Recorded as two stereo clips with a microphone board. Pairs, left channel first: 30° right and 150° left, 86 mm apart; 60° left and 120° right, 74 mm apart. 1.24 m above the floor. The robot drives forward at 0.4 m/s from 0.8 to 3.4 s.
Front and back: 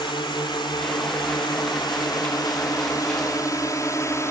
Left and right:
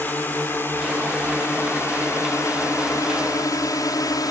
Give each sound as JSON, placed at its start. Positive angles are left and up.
{"t": 0.0, "sound": "a drone", "azimuth_deg": -5}